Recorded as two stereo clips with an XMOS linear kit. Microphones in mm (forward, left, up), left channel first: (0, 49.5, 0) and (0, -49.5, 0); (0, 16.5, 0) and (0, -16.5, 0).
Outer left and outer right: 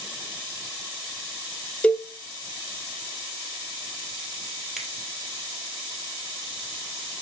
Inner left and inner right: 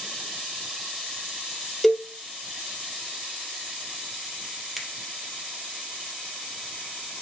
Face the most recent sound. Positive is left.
turn(degrees=-5)  # may be behind; listen again after turning